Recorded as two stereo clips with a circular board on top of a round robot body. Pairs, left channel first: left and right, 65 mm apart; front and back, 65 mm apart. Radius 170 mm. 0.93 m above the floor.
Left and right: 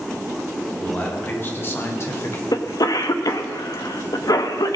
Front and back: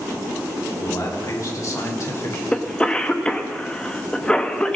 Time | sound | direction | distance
0.8 | a man speaking | 25° left | 3.5 m
2.5 | a cough | 75° left | 1.5 m